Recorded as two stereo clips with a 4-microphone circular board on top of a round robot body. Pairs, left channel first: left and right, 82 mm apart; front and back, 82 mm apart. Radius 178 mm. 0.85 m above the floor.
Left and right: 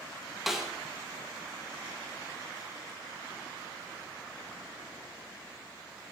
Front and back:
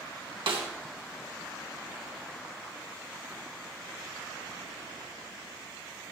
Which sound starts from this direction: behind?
A snare drum, at 0.5 s.